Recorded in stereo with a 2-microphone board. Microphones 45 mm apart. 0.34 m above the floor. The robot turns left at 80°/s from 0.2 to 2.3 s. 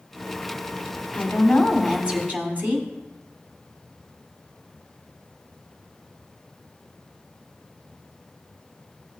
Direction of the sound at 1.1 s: 50° left.